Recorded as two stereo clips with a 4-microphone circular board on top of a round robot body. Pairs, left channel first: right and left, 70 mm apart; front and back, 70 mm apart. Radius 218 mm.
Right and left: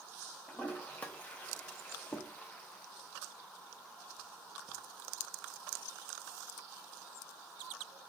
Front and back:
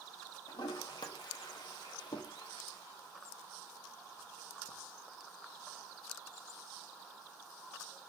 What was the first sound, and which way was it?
A toilet flushing, 20° right.